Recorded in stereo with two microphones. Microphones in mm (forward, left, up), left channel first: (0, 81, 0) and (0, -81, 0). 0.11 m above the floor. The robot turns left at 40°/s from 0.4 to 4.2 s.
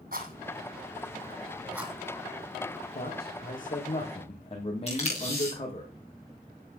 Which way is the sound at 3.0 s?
85° left.